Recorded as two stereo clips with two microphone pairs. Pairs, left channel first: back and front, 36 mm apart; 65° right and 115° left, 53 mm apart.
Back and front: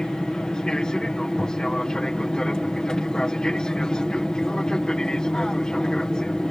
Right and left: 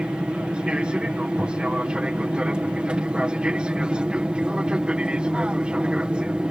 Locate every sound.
0.0 s an aircraft: 150° left